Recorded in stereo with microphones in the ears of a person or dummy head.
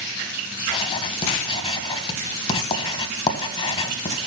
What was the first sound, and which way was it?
Writing, 30° left (ahead or behind).